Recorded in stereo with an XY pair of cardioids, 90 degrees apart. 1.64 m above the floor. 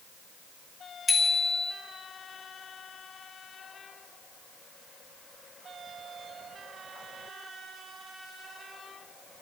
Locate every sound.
1.1 s a bicycle bell: 35° left, 2.5 m